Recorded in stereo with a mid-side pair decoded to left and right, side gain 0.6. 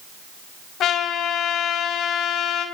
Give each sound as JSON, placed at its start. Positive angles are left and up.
{"t": 0.8, "sound": "a trumpet", "azimuth_deg": 55, "distance_m": 6.0}